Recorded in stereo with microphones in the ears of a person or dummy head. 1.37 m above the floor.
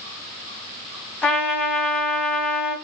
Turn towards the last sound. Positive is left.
turn(degrees=5)  # may be behind; listen again after turning